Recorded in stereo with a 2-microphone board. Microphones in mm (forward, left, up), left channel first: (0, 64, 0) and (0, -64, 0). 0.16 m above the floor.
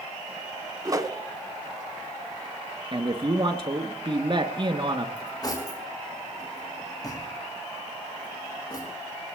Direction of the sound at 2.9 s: 40° right (ahead or behind).